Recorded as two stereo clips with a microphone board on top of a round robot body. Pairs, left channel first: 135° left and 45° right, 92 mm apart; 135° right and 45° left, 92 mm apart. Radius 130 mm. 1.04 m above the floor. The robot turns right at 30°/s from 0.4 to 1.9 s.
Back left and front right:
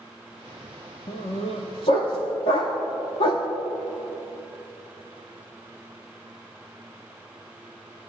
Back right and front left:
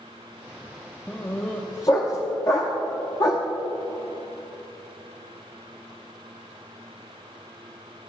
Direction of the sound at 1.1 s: 145° left.